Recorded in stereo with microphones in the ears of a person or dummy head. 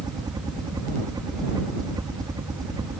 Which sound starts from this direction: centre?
A helicopter, at 0.0 s.